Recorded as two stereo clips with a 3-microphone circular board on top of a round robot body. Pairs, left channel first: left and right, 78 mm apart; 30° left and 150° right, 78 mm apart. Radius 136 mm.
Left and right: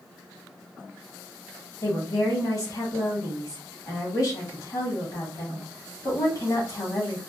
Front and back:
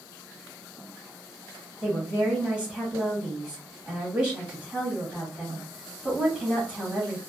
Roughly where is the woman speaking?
Behind left.